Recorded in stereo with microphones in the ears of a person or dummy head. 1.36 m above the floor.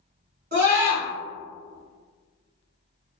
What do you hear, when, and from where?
0.5 s a scream: 60° right (ahead or behind), 1.8 m